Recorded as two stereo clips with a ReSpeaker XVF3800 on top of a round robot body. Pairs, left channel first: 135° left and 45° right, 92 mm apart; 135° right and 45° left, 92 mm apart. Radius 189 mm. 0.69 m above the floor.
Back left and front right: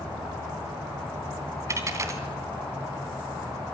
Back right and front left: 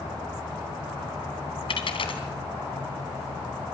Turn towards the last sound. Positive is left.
turn(degrees=-105)